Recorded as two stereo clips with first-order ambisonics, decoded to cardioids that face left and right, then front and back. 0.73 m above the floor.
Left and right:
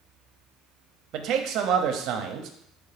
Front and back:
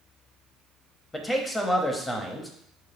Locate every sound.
1.1 s a man speaking: 80° right, 0.7 m